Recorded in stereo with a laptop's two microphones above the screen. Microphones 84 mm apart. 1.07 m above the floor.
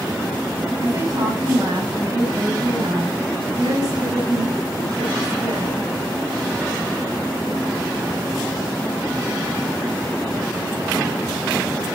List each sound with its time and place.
0.8 s a woman speaking: 45° right (ahead or behind), 5.5 m